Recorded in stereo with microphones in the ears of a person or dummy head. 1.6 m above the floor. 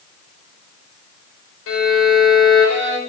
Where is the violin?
75° left (ahead or behind), 4.5 m.